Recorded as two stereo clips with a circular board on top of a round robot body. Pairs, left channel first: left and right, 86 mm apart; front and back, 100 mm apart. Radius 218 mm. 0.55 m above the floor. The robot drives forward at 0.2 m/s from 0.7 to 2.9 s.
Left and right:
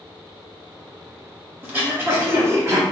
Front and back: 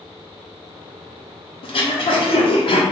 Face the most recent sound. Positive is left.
turn(degrees=-30)